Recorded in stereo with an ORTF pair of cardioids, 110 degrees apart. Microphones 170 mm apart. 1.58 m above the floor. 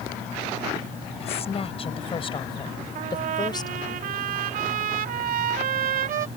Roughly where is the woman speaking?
Ahead left.